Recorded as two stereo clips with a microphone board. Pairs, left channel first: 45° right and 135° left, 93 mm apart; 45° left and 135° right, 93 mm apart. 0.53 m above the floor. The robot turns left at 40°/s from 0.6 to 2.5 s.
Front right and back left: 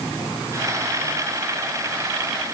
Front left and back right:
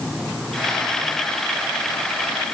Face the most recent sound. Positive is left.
No sound to turn to.